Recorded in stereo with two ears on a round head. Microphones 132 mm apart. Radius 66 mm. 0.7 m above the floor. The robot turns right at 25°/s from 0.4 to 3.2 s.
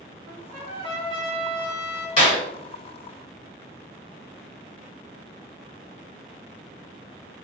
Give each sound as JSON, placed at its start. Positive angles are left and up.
{"t": 0.3, "sound": "a trumpet", "azimuth_deg": -85, "distance_m": 1.2}
{"t": 2.2, "sound": "a clap", "side_deg": 40, "distance_m": 1.5}